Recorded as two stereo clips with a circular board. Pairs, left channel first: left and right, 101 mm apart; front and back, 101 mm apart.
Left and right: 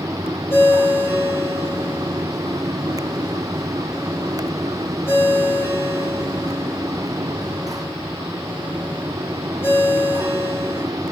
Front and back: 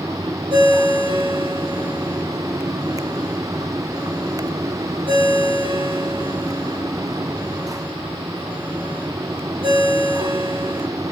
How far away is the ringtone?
About 8.5 m.